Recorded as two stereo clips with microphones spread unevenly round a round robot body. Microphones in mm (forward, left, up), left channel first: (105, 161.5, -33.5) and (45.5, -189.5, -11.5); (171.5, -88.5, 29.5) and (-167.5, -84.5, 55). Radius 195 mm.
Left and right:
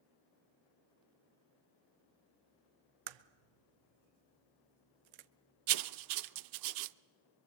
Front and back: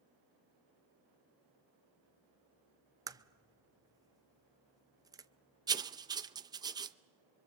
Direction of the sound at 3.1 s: 100° right.